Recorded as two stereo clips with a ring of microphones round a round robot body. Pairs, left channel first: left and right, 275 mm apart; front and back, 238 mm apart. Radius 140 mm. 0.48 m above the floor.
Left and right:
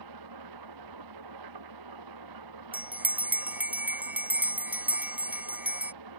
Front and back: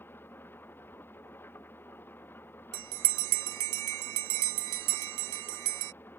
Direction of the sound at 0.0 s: 85° right.